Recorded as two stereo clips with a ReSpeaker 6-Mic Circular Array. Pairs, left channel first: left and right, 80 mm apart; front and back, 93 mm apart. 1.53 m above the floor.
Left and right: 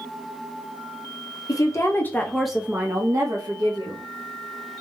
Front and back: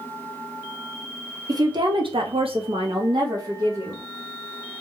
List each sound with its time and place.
1.5 s a woman speaking: 130° left, 0.7 m; by 4.0 s 120° right, 1.0 m